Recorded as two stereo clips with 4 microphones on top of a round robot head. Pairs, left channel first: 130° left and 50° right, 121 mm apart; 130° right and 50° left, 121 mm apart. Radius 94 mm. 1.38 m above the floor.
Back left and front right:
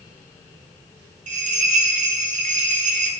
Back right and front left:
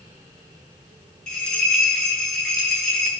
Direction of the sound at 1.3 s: 45° right.